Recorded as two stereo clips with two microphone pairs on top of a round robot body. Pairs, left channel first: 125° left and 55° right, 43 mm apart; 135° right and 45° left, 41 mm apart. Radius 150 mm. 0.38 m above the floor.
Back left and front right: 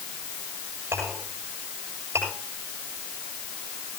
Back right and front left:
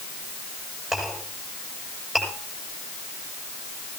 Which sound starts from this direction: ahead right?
A clink, at 0.9 s.